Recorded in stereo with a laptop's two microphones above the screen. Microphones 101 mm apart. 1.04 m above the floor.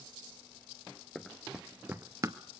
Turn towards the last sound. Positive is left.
turn(degrees=-35)  # may be behind; listen again after turning